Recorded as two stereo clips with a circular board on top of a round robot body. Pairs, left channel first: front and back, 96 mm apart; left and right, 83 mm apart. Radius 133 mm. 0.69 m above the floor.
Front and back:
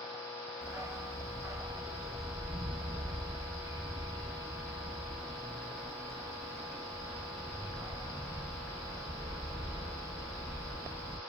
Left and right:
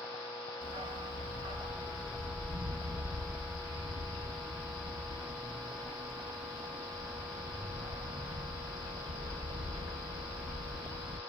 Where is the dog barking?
115° right, 0.5 m.